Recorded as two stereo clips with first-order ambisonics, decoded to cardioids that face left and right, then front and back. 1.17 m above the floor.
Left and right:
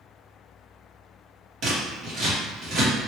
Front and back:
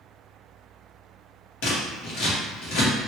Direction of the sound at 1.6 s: 30° right.